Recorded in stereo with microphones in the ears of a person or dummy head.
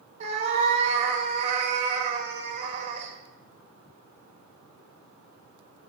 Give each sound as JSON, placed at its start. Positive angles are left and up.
{"t": 0.2, "sound": "a cat meowing", "side_deg": -35, "distance_m": 1.4}